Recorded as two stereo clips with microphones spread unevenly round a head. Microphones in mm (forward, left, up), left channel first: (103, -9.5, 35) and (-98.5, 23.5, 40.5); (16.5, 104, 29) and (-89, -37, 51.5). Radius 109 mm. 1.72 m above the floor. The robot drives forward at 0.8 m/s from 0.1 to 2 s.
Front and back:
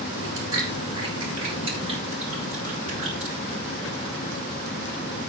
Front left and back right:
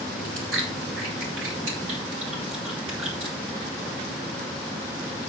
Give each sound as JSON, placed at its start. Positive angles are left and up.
{"t": 0.2, "sound": "chewing", "azimuth_deg": -115, "distance_m": 6.0}